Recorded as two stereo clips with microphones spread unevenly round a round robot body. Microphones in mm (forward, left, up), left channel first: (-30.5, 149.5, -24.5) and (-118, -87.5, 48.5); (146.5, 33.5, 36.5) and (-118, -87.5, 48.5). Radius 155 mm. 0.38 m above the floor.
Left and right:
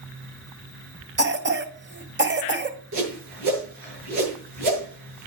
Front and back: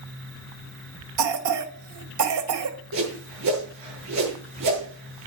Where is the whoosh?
125° right, 8.5 m.